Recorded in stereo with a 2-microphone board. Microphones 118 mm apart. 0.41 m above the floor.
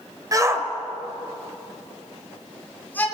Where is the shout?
30° right (ahead or behind), 2 m; by 3.0 s 15° left (ahead or behind), 5 m.